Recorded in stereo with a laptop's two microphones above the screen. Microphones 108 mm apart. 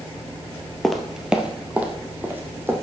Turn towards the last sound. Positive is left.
turn(degrees=-20)  # may be behind; listen again after turning